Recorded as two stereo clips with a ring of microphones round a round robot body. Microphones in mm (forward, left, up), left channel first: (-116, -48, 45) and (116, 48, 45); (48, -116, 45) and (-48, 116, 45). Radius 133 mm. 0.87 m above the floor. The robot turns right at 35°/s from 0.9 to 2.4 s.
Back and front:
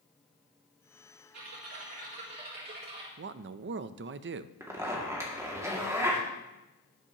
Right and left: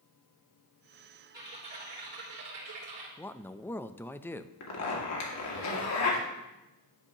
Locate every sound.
1.3 s typing on a keyboard: 40° left, 3 m; by 3.1 s 75° left, 3 m
3.2 s a man speaking: 10° left, 0.5 m
4.6 s a zipper: 55° right, 2 m